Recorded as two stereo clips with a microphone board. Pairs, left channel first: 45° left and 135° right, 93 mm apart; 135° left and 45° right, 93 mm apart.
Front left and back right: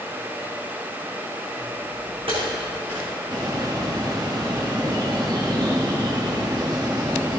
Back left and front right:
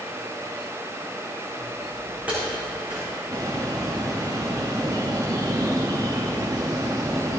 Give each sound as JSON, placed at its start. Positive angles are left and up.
{"t": 1.6, "sound": "footsteps", "azimuth_deg": -135, "distance_m": 3.5}
{"t": 3.3, "sound": "a bird", "azimuth_deg": -95, "distance_m": 1.3}